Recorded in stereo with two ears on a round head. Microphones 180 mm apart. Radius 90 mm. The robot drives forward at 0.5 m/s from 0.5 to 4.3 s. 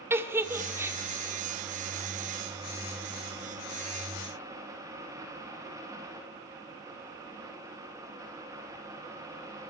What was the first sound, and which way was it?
A giggle, 15° right (ahead or behind).